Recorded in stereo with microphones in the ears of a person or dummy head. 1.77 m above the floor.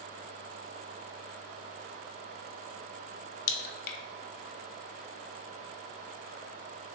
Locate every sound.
3.5 s a crack: 60° left (ahead or behind), 0.6 m